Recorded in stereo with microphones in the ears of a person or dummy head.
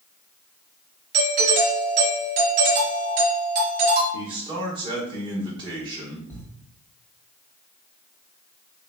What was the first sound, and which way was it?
A doorbell, 45° right (ahead or behind).